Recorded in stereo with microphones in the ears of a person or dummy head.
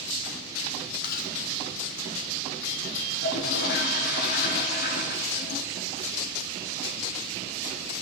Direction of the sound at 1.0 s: 55° left (ahead or behind).